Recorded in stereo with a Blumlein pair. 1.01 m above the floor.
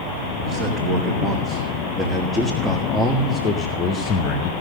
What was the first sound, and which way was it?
A man speaking, 30° right.